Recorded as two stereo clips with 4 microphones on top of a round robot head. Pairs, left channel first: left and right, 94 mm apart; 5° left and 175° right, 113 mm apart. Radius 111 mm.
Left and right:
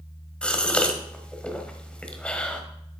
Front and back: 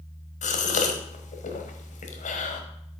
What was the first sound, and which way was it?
A gasp, 10° left.